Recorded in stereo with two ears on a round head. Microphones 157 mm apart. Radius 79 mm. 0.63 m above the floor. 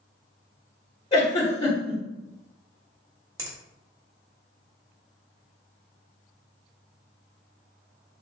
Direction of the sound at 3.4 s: 20° right (ahead or behind).